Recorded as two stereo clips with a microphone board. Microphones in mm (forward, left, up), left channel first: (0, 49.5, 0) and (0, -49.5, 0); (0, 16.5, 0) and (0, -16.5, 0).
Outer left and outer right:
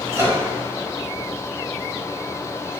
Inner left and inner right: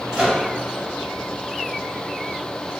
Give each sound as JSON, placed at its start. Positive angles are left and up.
{"t": 0.1, "sound": "a microwave", "side_deg": -30, "distance_m": 1.1}